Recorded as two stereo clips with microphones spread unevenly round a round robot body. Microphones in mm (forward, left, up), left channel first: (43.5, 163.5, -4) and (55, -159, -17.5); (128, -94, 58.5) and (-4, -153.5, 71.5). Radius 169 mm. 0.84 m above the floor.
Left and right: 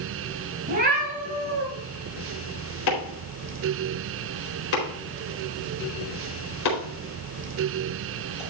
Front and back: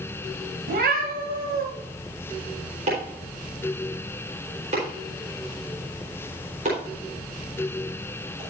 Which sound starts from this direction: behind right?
A cat meowing, at 0.7 s.